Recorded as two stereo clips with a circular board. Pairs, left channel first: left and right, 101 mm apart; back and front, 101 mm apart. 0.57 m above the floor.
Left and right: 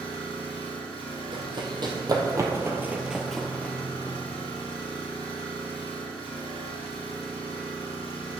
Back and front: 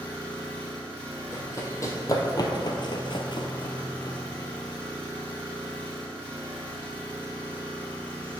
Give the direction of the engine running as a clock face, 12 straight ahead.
8 o'clock.